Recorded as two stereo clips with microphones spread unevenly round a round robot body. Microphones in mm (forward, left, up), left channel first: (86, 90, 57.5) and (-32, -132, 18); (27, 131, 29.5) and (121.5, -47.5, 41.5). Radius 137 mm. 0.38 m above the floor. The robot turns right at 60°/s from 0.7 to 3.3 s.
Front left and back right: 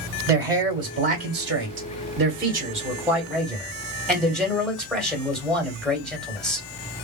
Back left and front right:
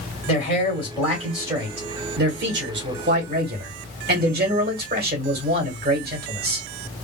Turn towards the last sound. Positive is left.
turn(degrees=-30)